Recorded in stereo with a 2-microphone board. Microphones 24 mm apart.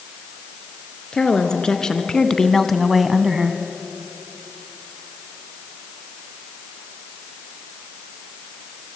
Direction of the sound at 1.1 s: 30° left (ahead or behind).